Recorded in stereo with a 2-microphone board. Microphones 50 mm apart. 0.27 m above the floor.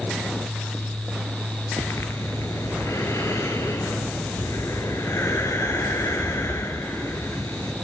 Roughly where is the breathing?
Left.